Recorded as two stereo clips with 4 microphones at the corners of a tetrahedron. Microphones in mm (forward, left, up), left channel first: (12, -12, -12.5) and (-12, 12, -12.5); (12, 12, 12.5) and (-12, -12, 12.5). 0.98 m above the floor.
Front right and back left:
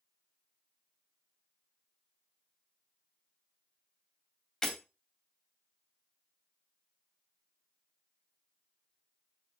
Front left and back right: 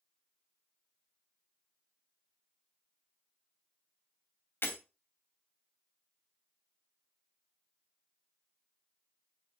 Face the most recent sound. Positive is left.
turn(degrees=35)